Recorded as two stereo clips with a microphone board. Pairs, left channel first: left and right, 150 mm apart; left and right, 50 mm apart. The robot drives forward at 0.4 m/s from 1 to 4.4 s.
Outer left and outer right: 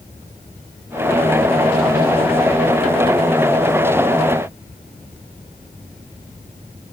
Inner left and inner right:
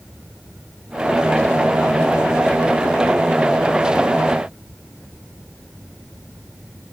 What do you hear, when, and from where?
Only background noise.